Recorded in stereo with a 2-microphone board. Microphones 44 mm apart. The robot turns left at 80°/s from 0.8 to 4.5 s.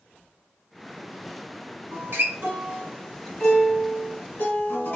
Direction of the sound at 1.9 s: 70° right.